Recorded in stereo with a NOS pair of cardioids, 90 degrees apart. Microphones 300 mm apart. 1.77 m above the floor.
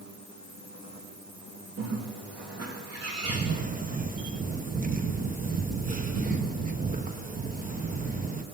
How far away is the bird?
About 3.5 m.